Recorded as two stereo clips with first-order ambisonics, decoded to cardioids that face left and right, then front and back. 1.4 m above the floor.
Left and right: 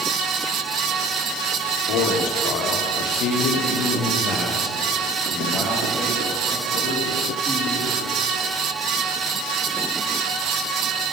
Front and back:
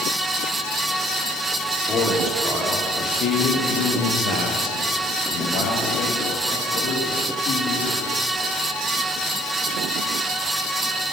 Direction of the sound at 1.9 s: 75° left.